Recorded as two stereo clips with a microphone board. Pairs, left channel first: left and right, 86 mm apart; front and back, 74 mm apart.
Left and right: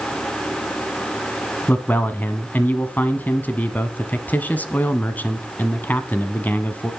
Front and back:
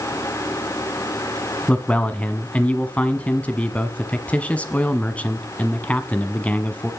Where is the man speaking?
45° left, 1.1 m.